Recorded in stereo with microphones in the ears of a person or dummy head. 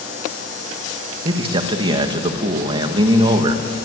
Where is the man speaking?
30° right (ahead or behind), 2 m.